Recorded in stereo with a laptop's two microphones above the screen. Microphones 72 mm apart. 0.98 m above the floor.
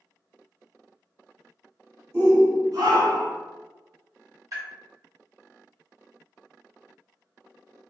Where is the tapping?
50° right (ahead or behind), 1.4 m.